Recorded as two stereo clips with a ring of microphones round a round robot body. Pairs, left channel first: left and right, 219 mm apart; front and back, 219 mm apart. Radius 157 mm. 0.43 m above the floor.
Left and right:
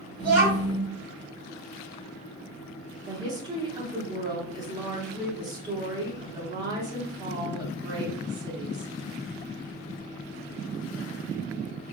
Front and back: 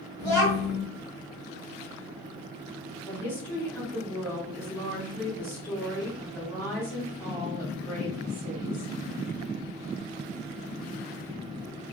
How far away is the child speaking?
About 2.0 m.